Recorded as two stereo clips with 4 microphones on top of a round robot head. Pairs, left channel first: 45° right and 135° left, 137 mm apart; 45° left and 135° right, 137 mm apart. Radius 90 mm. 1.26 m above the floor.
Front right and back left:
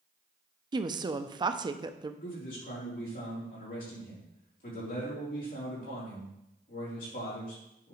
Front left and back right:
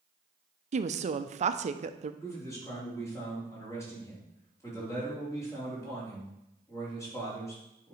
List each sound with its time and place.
0.7 s a woman speaking: 165° right, 0.6 m
2.2 s a man speaking: 25° right, 4 m